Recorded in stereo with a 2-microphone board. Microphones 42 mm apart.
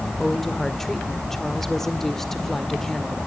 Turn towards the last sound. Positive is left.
turn(degrees=5)  # may be behind; listen again after turning